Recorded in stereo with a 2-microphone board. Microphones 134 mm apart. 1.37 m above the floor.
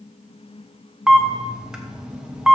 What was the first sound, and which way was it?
A camera shutter, 5° right (ahead or behind).